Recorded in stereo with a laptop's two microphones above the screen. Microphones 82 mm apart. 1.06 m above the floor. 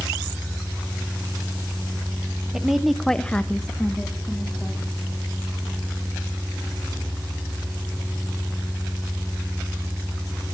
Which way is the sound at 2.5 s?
5° right (ahead or behind).